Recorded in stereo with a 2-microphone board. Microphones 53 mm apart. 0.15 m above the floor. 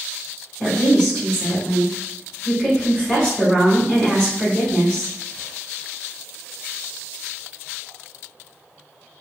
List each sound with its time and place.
0.6 s a woman speaking: 15° left (ahead or behind), 1.4 m